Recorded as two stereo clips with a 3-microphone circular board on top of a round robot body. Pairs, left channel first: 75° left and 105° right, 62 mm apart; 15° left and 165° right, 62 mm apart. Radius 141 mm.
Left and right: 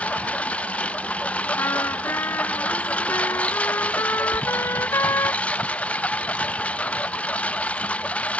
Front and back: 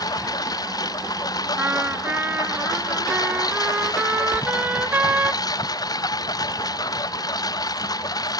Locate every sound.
0.0 s a lawn mower: 5° left
1.6 s a trumpet: 130° left
4.3 s a door slam: 60° right